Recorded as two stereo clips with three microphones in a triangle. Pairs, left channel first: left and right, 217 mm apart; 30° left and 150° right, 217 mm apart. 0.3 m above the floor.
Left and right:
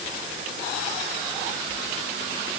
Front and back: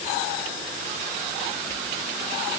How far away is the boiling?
No boiling in this recording.